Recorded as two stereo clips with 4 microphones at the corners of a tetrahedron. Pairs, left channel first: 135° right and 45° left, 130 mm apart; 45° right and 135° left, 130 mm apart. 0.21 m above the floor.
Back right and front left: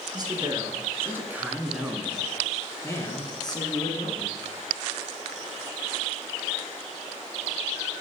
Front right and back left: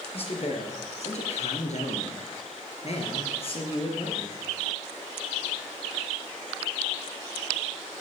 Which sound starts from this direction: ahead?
A man speaking, at 0.1 s.